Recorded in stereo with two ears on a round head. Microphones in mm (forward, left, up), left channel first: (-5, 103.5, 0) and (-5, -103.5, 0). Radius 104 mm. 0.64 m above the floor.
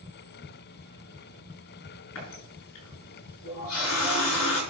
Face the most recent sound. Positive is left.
turn(degrees=65)  # may be behind; listen again after turning